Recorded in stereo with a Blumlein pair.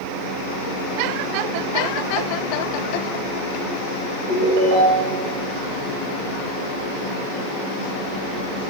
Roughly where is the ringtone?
Ahead right.